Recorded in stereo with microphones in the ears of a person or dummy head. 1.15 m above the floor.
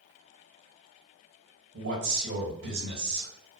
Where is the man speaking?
65° right (ahead or behind), 1.9 m.